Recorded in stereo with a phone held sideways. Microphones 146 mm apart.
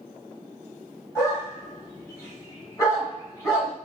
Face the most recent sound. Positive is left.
turn(degrees=25)  # may be behind; listen again after turning